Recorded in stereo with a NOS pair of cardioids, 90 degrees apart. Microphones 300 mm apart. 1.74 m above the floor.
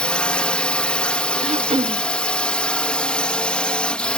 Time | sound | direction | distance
0.0 | a drone | 5° left | ?
1.4 | throat clearing | 20° right | ?